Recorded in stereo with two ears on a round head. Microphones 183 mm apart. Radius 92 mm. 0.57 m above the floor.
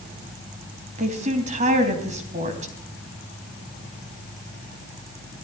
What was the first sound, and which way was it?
A woman speaking, 35° right (ahead or behind).